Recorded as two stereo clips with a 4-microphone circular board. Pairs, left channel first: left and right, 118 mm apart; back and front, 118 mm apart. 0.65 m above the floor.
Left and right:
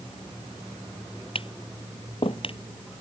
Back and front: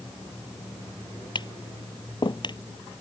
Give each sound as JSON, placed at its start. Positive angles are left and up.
{"t": 1.4, "sound": "tapping", "azimuth_deg": 130}